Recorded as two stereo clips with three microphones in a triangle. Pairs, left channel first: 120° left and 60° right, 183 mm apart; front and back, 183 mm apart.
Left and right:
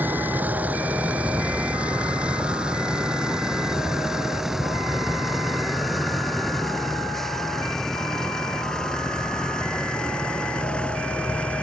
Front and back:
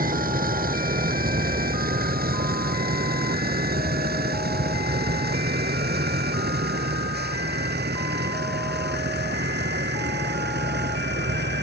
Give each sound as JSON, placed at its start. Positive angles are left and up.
{"t": 0.0, "sound": "a vehicle", "azimuth_deg": -140}